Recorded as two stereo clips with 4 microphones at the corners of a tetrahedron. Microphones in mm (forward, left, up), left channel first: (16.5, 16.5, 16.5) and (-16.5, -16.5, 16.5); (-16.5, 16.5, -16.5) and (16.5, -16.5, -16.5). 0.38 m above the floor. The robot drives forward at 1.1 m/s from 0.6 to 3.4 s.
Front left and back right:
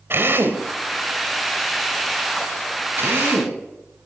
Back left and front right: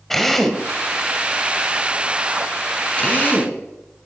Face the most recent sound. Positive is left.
turn(degrees=-165)